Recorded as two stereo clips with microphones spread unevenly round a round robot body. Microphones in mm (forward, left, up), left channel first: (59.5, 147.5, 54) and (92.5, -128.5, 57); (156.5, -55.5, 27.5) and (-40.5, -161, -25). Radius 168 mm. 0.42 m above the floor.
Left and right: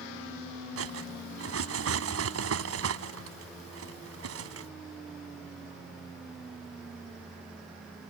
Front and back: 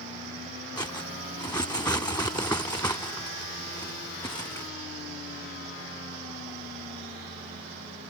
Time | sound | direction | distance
0.8 | cutlery clinking | 45° right | ?